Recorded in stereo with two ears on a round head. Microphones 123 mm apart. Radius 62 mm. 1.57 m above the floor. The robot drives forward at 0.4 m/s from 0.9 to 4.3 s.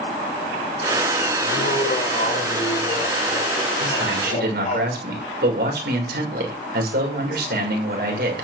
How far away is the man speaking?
About 6.5 m.